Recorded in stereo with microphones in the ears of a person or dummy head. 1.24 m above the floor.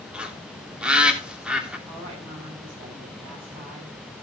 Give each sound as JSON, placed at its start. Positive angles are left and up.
{"t": 0.1, "sound": "a bird", "side_deg": -10, "distance_m": 3.5}
{"t": 1.9, "sound": "a woman speaking", "side_deg": -30, "distance_m": 8.5}